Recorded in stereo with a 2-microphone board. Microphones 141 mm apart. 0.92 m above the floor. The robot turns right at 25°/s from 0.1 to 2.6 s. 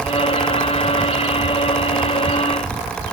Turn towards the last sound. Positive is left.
No sound to turn to.